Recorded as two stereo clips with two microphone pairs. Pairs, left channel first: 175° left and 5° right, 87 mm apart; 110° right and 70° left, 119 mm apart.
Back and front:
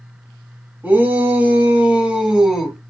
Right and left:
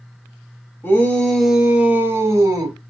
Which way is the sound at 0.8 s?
50° right.